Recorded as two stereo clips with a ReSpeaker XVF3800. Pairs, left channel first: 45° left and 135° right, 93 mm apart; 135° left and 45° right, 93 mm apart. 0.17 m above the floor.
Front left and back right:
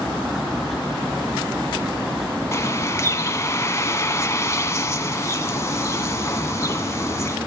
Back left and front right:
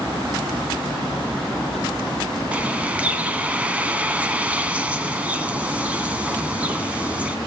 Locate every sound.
2.5 s a bird: 15° left, 1.1 m